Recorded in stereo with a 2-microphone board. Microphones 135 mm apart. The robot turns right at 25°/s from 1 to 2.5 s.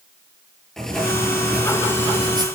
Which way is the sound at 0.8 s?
175° left.